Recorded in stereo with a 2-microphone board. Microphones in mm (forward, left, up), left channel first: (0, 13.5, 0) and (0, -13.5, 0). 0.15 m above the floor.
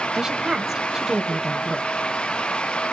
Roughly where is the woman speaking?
Right.